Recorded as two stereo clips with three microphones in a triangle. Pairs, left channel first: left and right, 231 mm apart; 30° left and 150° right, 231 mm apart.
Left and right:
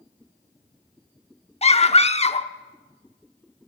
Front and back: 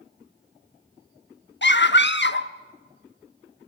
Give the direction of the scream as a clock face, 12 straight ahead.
11 o'clock.